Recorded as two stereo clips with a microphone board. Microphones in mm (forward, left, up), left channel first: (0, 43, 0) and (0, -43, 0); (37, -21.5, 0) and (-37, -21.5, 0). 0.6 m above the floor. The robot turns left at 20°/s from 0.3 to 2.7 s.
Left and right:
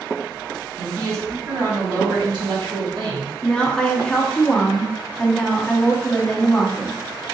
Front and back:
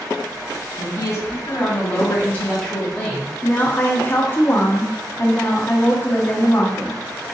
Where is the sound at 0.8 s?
35° right, 1.5 m; by 3.3 s 75° right, 1.5 m.